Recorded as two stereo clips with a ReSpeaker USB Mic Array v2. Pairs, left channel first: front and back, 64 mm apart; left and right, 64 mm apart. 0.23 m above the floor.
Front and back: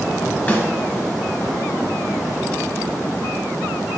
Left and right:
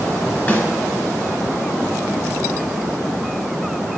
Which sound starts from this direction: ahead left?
A snare drum, at 0.5 s.